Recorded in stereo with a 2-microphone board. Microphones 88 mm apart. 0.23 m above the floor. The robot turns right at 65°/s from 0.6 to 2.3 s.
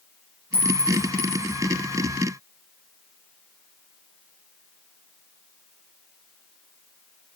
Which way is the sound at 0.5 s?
85° right.